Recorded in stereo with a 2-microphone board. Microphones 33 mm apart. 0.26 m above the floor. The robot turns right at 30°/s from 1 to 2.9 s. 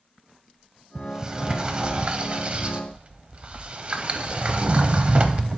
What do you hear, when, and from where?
0.9 s a sliding door: 25° right (ahead or behind), 0.6 m; by 5.6 s 35° right (ahead or behind), 0.6 m